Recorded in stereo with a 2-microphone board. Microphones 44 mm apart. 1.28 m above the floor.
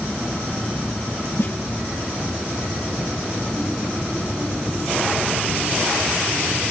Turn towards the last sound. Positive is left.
turn(degrees=70)  # may be behind; listen again after turning